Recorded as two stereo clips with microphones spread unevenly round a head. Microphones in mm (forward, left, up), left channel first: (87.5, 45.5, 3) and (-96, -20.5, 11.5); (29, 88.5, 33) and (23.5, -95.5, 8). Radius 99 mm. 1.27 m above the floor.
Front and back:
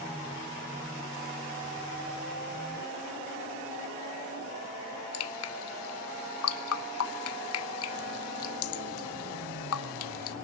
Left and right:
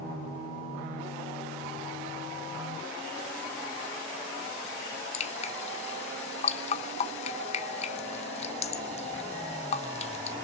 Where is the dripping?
35° left, 0.9 m.